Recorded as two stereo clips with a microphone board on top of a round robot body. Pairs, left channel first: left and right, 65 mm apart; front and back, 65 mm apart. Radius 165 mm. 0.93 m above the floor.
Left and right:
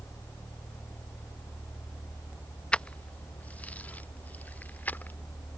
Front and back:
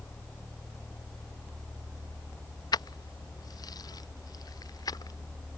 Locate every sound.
2.7 s keys jangling: 15° left; by 5.2 s 25° left